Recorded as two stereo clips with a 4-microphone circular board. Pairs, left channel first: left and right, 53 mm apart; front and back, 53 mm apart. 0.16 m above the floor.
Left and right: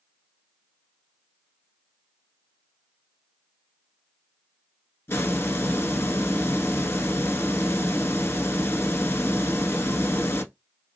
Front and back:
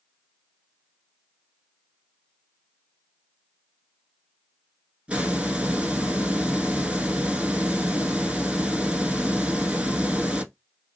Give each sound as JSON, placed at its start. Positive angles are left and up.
{"t": 5.1, "sound": "a hiss", "azimuth_deg": 115, "distance_m": 0.8}